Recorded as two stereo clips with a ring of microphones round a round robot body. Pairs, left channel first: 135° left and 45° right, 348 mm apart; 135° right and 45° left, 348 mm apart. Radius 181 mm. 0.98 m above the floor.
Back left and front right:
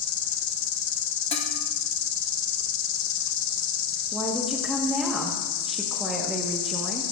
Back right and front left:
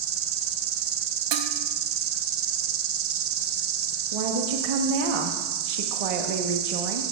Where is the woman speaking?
45° left, 1.2 m.